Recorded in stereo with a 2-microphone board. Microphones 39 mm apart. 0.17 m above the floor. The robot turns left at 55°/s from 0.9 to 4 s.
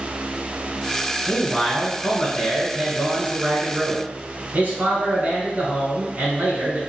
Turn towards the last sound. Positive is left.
turn(degrees=-90)